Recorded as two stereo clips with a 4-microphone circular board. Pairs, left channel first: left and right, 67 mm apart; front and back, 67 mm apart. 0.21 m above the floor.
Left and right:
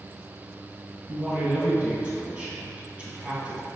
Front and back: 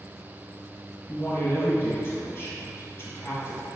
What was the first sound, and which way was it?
A man speaking, 25° right.